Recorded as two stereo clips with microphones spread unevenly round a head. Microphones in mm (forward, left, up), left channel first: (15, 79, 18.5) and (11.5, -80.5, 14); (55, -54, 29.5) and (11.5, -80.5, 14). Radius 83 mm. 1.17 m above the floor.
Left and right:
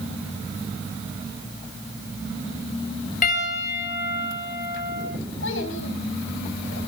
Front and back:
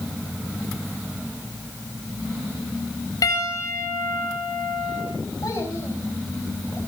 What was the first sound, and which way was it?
A piano, 50° left.